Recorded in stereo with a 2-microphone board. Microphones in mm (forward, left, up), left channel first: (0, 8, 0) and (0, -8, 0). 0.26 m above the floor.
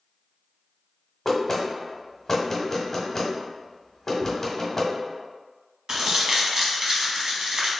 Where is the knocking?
25° left (ahead or behind), 1.1 m.